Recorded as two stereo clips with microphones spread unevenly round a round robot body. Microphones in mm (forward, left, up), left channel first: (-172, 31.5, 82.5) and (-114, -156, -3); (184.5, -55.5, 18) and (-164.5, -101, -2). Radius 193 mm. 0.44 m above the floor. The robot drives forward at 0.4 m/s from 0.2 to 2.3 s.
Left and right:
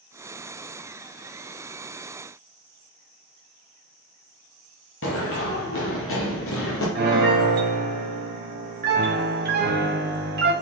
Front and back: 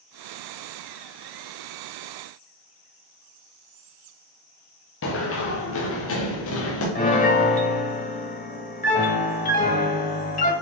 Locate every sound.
5.0 s running footsteps: 65° left, 2 m
7.0 s a piano: 60° right, 1.6 m